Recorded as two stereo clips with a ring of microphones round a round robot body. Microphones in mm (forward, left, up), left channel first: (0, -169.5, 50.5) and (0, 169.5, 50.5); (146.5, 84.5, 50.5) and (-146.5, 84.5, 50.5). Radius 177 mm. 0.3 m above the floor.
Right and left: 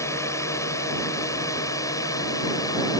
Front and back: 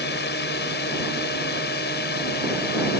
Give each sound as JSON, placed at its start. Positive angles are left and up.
{"t": 0.0, "sound": "a drone", "azimuth_deg": -15}